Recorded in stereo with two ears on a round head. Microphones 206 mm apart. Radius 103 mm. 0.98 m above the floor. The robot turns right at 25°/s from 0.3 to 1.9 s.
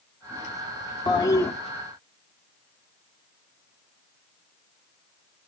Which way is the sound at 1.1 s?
20° left (ahead or behind).